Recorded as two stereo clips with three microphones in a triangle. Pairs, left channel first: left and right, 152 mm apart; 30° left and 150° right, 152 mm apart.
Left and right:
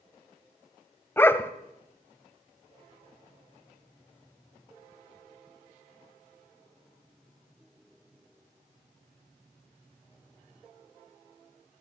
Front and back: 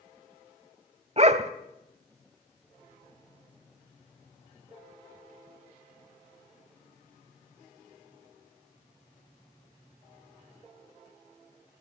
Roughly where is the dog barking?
Behind.